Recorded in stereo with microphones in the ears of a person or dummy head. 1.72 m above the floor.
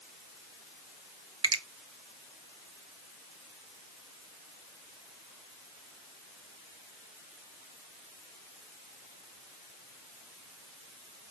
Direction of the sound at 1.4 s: 25° right (ahead or behind).